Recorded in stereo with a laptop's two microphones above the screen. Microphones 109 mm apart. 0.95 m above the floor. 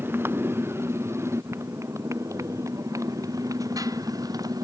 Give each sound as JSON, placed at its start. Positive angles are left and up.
{"t": 0.0, "sound": "a motorcycle", "side_deg": -20}